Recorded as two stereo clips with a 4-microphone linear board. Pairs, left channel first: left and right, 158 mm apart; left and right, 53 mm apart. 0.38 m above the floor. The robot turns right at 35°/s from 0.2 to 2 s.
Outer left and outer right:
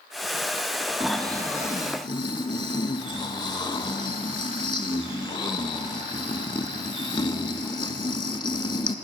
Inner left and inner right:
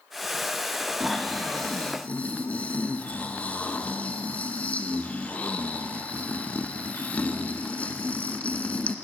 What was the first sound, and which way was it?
Snoring, 5° right.